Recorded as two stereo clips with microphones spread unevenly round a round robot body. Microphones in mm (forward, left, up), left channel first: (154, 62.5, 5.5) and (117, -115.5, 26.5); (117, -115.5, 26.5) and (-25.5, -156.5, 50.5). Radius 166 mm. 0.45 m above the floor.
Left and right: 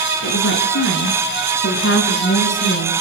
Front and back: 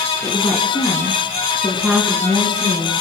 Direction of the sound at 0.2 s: 90° left.